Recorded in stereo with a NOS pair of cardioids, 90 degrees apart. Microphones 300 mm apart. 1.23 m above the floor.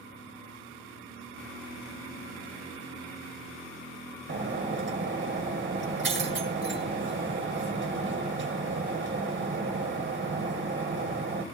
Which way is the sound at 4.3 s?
40° right.